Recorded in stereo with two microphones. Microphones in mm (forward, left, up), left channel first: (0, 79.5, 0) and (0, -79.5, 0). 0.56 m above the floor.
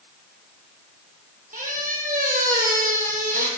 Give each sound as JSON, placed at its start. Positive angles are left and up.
{"t": 1.5, "sound": "a squeak", "side_deg": -60, "distance_m": 1.1}